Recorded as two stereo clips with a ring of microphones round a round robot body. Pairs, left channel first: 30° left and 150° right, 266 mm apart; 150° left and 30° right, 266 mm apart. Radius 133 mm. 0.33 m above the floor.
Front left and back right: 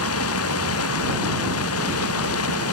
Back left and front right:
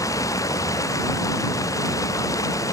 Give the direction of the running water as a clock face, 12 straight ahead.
10 o'clock.